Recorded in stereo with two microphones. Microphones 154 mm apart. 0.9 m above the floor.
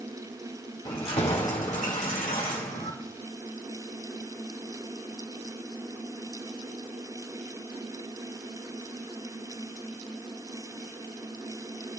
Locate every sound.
0.8 s keys jangling: 35° left (ahead or behind), 1.7 m; by 2.9 s 75° left (ahead or behind), 2 m